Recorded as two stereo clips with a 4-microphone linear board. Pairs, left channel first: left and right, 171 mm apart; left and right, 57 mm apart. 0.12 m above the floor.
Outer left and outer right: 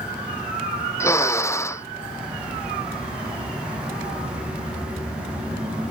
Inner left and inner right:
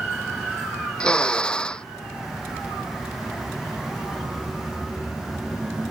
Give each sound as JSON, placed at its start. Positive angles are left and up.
{"t": 1.0, "sound": "a drill", "side_deg": 15}